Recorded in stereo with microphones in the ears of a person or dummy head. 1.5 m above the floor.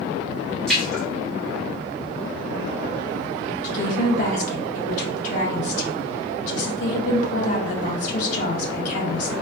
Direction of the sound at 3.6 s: 45° left (ahead or behind).